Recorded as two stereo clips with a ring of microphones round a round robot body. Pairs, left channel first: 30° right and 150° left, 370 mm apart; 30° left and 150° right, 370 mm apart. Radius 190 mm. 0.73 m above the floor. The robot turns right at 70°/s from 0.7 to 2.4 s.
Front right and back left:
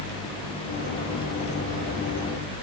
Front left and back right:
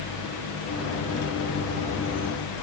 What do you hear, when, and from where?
Only background noise.